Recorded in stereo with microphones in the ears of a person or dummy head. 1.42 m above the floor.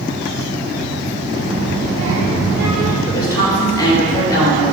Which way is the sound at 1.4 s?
40° right (ahead or behind).